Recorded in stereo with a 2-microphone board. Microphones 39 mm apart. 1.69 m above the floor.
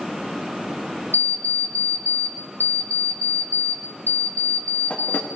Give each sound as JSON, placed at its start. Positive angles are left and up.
{"t": 1.1, "sound": "an alarm clock", "side_deg": 65, "distance_m": 1.7}